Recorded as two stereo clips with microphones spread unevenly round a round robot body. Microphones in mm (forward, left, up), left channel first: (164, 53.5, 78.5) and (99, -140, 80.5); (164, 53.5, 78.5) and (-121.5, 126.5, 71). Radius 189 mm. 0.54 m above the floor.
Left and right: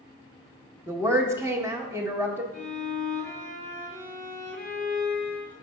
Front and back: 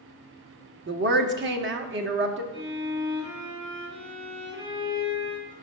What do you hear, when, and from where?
0.9 s a woman speaking: straight behind, 0.8 m
2.5 s a violin: 150° right, 2.5 m